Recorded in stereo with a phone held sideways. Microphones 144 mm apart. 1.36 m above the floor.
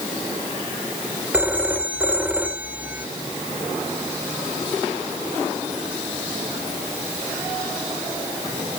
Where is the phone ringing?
10° right (ahead or behind).